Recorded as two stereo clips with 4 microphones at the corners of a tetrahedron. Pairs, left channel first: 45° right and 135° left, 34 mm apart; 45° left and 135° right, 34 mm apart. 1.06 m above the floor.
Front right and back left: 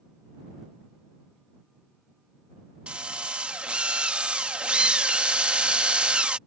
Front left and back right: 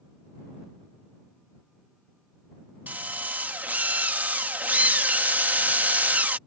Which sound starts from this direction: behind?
A drill, at 2.9 s.